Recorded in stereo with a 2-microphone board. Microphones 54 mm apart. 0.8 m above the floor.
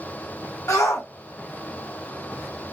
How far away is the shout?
About 1.9 m.